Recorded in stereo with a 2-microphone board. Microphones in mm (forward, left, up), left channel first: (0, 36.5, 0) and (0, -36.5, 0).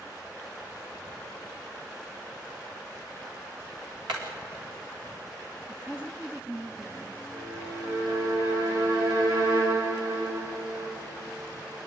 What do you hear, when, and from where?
4.1 s hammering: 85° right, 4.5 m
5.7 s a woman speaking: 20° right (ahead or behind), 1.6 m
7.3 s a violin: 75° right (ahead or behind), 6 m